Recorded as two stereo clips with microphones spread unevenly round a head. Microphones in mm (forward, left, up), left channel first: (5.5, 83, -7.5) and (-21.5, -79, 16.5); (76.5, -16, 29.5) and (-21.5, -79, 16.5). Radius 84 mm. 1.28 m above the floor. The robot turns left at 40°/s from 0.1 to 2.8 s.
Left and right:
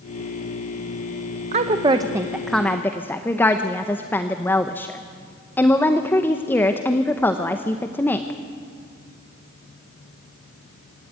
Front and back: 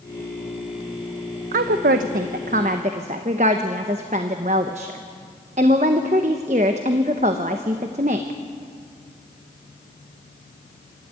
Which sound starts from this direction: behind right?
A woman speaking, at 1.5 s.